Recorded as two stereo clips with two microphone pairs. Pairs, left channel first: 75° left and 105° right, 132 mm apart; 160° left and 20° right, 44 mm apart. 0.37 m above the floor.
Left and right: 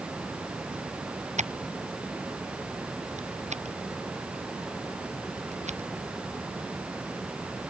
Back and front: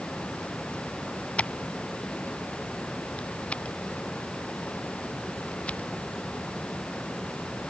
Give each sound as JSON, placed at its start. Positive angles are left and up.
{"t": 1.4, "sound": "scissors", "azimuth_deg": -135}